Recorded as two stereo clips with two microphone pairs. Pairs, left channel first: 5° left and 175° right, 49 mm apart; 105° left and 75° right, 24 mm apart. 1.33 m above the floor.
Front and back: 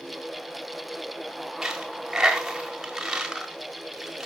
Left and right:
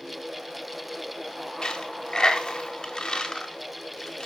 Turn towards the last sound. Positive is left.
turn(degrees=115)